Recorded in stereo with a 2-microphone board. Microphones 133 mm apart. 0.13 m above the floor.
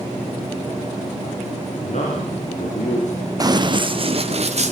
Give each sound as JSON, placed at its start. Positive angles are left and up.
{"t": 1.8, "sound": "a man speaking", "side_deg": 60, "distance_m": 8.0}
{"t": 3.4, "sound": "running footsteps", "side_deg": -30, "distance_m": 1.6}